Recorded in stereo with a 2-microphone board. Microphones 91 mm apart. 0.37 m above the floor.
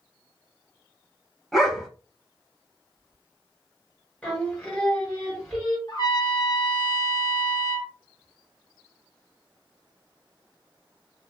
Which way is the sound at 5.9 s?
50° left (ahead or behind).